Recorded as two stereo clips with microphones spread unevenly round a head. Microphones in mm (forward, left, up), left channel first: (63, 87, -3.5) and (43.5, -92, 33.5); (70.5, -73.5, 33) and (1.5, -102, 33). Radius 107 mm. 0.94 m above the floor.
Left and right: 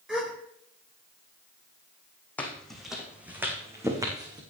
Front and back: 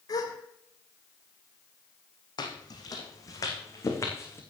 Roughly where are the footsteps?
Ahead.